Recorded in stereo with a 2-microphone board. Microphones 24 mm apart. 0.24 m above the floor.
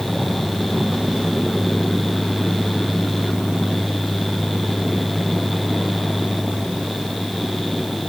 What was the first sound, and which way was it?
Only background noise.